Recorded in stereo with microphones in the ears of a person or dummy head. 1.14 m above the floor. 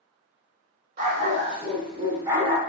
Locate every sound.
1.0 s a dog barking: 50° right (ahead or behind), 1.6 m; by 2.6 s 10° right (ahead or behind), 1.2 m